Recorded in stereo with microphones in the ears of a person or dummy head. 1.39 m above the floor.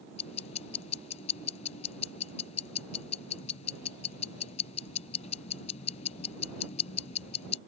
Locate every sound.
0.2 s ticking: 35° left (ahead or behind)